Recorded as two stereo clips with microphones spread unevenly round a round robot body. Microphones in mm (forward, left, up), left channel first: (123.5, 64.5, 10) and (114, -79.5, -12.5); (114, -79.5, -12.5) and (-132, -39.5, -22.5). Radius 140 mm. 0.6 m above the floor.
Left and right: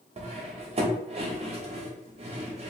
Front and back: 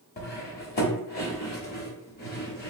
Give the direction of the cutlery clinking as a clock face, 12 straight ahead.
2 o'clock.